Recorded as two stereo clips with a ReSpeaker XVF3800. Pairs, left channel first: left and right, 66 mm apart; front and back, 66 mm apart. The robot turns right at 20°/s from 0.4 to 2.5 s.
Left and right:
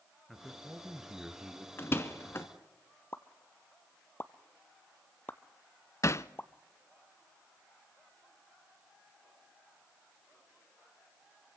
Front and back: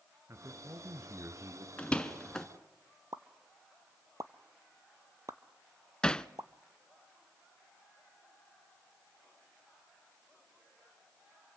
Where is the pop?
150° left, 0.7 m.